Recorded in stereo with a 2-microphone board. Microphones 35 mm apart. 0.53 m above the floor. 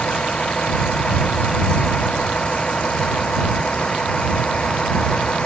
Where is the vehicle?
30° left (ahead or behind); by 5.5 s 25° left (ahead or behind).